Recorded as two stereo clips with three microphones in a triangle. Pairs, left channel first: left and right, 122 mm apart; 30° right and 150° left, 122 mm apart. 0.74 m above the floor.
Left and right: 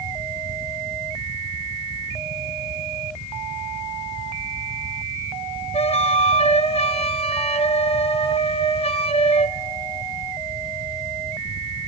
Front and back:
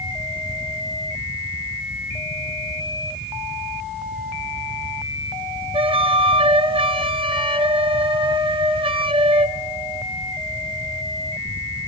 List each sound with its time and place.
5.7 s a flute: 115° left, 1.1 m